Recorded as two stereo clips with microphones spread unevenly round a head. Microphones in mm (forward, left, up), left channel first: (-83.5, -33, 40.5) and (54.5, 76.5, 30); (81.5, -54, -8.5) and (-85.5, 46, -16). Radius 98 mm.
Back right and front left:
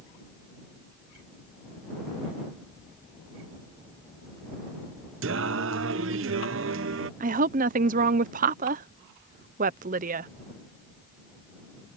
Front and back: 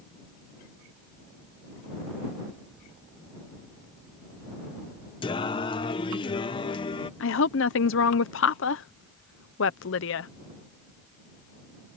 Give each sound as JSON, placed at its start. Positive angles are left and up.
{"t": 5.2, "sound": "singing", "azimuth_deg": 30}
{"t": 7.2, "sound": "a woman speaking", "azimuth_deg": -5}